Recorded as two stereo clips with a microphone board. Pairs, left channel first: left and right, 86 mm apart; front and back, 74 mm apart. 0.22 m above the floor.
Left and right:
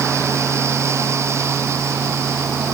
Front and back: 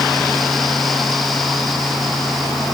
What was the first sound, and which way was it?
Only background noise.